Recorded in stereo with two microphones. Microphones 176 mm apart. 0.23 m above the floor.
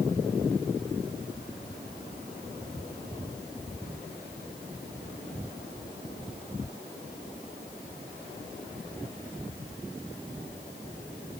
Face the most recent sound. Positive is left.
No sound to turn to.